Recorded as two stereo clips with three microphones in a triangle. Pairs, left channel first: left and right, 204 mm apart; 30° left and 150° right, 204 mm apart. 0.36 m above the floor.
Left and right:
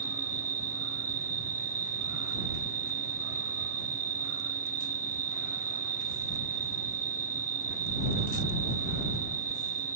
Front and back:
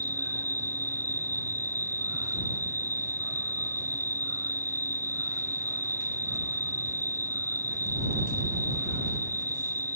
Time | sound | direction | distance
0.0 | an insect | 140° left | ?